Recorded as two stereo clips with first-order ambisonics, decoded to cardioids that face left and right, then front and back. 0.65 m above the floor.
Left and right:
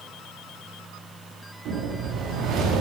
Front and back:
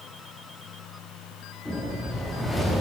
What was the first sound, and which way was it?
A whoosh, 85° right.